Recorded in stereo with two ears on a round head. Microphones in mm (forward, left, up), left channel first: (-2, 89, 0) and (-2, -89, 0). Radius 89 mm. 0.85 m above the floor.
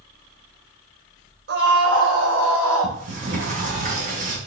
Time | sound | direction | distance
1.5 | a scream | 55° right (ahead or behind) | 3.5 m
2.8 | a sliding door | 40° right (ahead or behind) | 5 m